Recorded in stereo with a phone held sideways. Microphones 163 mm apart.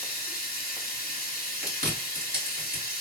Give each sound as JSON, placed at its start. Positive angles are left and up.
{"t": 0.0, "sound": "running water", "side_deg": 60, "distance_m": 1.0}
{"t": 1.6, "sound": "chewing", "side_deg": -60, "distance_m": 1.6}